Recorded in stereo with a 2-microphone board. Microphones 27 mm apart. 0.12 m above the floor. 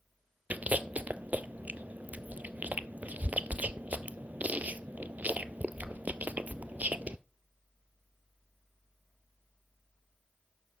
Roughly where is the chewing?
Right.